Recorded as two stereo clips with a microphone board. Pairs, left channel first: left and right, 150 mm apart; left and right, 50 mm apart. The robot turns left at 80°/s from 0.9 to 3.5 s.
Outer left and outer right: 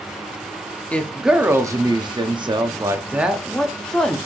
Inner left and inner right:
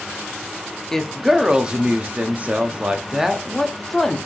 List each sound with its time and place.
0.9 s a woman speaking: 20° left, 0.6 m; by 4.2 s 170° left, 0.6 m